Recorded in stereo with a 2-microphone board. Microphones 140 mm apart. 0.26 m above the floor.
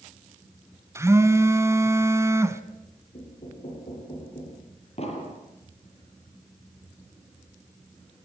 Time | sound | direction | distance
0.9 | a phone buzzing | 20° right (ahead or behind) | 1.5 m
3.1 | knocking | 50° left (ahead or behind) | 9.5 m
5.0 | an explosion | 45° left (ahead or behind) | 6.5 m